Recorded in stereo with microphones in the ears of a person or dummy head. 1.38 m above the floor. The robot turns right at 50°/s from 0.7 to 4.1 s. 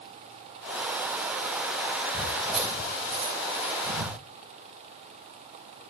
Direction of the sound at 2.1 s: 25° left (ahead or behind).